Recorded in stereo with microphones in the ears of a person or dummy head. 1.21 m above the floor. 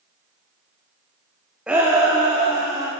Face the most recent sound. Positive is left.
turn(degrees=-25)  # may be behind; listen again after turning